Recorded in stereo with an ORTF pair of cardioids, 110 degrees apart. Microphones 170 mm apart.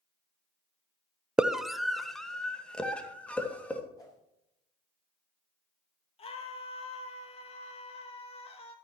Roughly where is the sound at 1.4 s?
Ahead.